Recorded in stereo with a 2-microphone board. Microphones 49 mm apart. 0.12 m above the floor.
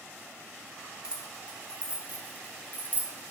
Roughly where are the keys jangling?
Centre.